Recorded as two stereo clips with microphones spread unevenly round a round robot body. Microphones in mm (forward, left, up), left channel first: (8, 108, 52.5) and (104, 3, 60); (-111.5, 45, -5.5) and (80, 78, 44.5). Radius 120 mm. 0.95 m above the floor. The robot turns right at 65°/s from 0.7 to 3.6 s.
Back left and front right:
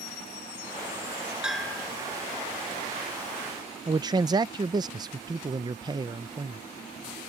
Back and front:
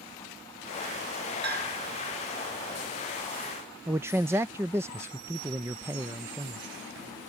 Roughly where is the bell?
Ahead left.